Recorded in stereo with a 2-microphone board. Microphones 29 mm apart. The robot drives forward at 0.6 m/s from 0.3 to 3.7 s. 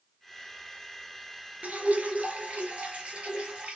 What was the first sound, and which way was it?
Dripping, 55° right (ahead or behind).